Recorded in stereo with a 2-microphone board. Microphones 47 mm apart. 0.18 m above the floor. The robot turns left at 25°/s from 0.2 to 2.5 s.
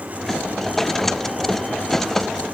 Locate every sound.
Only background noise.